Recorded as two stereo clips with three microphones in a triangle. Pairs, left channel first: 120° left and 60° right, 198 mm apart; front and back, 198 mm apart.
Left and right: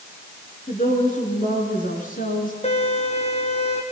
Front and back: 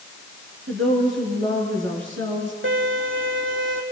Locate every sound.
0.7 s a woman speaking: 170° left, 6.5 m; by 2.5 s 165° left, 5.5 m
2.6 s a violin: 175° left, 3.5 m